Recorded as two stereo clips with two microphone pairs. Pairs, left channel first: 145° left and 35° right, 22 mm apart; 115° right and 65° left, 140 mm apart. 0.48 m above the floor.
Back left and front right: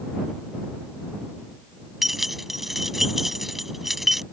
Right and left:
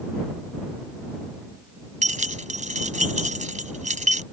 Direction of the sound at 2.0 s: 40° left.